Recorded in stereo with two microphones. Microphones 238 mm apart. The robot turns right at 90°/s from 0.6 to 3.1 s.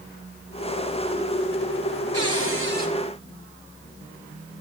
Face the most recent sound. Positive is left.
turn(degrees=-10)